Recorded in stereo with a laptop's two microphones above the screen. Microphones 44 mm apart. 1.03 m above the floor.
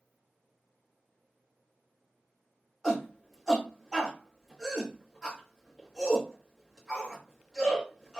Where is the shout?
10° right (ahead or behind), 1.3 m.